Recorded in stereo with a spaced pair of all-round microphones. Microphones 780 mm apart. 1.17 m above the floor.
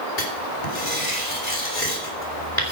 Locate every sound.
0.2 s writing: 55° left (ahead or behind), 3.5 m